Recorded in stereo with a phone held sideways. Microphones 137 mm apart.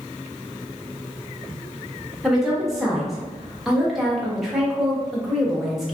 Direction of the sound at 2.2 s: 5° right (ahead or behind).